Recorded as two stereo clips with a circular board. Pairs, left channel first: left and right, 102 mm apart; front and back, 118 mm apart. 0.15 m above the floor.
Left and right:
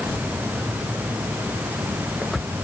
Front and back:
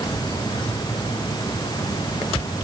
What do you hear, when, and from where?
Only background noise.